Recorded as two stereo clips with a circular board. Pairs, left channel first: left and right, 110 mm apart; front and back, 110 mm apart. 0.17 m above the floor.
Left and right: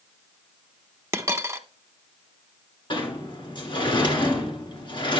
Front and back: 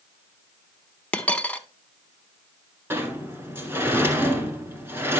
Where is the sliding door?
115° left, 1.8 m.